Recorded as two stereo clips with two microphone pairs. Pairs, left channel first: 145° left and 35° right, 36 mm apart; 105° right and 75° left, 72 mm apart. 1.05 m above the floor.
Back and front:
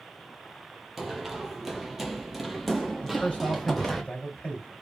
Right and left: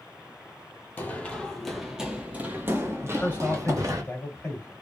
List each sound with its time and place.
1.0 s running footsteps: 110° right, 1.1 m; by 4.0 s 60° left, 1.7 m
3.0 s a man speaking: 160° right, 2.5 m